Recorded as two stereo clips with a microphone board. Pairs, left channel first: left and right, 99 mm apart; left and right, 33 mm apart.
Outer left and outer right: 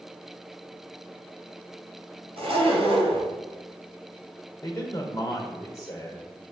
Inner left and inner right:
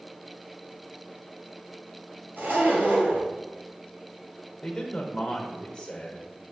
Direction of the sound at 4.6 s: 35° left (ahead or behind).